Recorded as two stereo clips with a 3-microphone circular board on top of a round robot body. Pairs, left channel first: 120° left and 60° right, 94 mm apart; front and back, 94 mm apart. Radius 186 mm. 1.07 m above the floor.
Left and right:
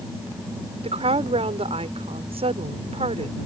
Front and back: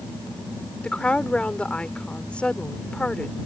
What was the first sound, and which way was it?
A woman speaking, 80° right.